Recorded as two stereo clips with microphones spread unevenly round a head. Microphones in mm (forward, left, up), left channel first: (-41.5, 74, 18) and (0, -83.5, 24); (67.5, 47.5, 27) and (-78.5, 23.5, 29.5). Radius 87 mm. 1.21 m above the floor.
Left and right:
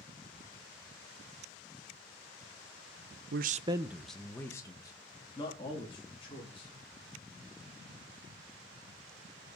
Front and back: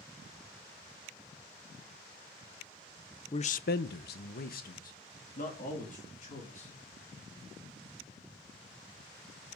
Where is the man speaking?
50° right, 0.5 m; by 6.7 s 45° left, 3.5 m.